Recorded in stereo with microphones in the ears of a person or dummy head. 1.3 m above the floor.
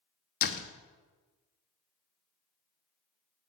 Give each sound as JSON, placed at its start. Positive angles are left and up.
{"t": 0.4, "sound": "a door slam", "side_deg": 50, "distance_m": 1.0}